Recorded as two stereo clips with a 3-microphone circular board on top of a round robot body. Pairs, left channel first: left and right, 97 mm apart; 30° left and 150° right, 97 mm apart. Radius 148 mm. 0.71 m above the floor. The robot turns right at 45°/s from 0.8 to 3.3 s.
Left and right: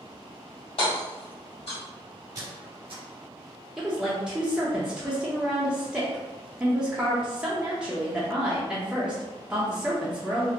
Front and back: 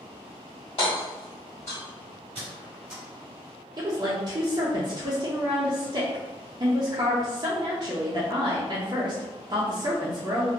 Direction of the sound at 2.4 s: 135° right.